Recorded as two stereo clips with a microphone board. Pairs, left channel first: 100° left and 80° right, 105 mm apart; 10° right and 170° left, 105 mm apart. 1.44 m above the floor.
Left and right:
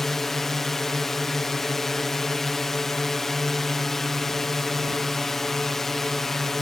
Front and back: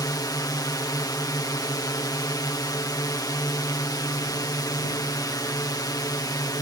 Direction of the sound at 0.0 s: 15° left.